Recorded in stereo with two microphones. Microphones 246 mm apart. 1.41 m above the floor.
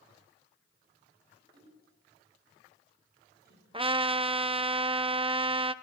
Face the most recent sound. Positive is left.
turn(degrees=-20)  # may be behind; listen again after turning